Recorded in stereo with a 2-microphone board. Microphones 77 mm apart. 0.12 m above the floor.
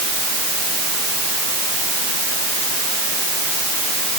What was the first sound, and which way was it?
Only background noise.